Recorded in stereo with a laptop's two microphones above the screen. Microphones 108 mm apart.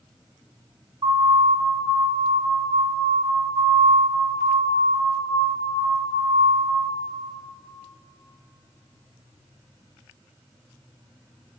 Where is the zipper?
No zipper in this recording.